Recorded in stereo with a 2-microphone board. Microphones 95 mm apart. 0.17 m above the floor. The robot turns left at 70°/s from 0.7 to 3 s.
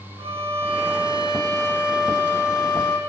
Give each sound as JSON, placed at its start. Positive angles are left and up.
{"t": 0.2, "sound": "a violin", "azimuth_deg": -85, "distance_m": 6.0}